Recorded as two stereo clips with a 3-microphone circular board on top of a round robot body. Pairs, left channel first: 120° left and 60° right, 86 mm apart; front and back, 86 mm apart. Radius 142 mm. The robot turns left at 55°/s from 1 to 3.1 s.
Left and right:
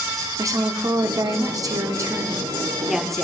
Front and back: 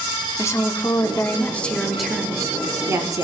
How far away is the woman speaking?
About 1.2 m.